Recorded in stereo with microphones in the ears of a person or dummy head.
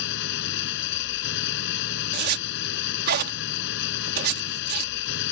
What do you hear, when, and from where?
0.0 s an engine running: 65° left (ahead or behind)
2.1 s a zipper: 55° right (ahead or behind)